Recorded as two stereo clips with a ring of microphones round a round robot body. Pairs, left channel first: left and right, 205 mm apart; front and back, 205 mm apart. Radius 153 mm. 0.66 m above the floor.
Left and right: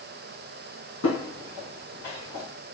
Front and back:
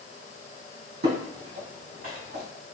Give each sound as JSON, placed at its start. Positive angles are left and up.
{"t": 1.0, "sound": "footsteps", "azimuth_deg": 140, "distance_m": 2.0}